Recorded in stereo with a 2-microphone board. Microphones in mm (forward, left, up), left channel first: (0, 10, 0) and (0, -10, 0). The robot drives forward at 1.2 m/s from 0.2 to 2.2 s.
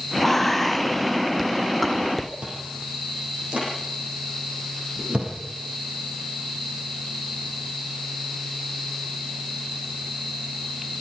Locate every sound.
0.2 s whispering: 15° left (ahead or behind), 1.1 m; by 2.3 s 5° left (ahead or behind), 2.5 m
2.4 s chewing: 75° right (ahead or behind), 8.5 m